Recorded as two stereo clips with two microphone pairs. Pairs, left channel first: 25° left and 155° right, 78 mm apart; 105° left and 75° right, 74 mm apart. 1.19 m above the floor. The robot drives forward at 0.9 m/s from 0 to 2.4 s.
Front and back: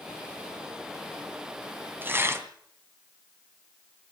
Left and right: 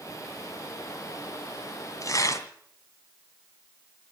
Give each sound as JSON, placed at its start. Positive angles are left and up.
{"t": 2.0, "sound": "tearing paper", "azimuth_deg": 140, "distance_m": 2.0}